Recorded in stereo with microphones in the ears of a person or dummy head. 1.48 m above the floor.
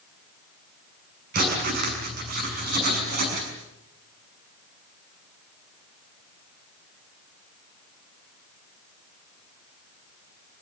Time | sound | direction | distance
1.3 | writing | 45° right (ahead or behind) | 6 m